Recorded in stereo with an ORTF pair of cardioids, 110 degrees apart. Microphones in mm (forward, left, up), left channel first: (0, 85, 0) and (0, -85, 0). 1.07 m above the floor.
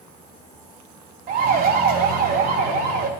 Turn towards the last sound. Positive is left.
turn(degrees=-80)